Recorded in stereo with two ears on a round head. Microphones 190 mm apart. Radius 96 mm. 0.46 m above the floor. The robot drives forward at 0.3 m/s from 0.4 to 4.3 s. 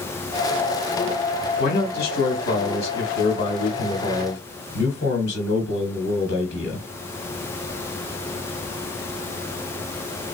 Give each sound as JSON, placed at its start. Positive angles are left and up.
{"t": 1.6, "sound": "a man speaking", "side_deg": 45, "distance_m": 1.9}